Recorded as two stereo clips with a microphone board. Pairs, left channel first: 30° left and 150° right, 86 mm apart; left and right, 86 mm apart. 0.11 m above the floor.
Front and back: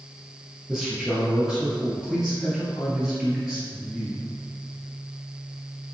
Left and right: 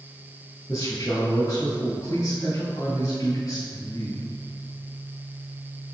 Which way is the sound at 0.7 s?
125° left.